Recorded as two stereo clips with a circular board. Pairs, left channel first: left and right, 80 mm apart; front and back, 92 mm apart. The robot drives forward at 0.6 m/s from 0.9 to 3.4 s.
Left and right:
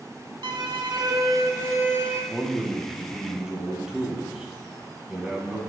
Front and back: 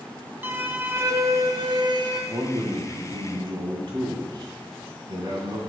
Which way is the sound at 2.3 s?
160° right.